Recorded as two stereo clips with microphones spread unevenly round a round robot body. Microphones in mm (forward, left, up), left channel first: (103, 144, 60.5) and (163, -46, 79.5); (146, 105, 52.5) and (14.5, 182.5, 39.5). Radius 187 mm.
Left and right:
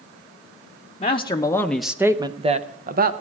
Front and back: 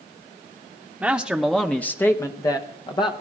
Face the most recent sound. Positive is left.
turn(degrees=-85)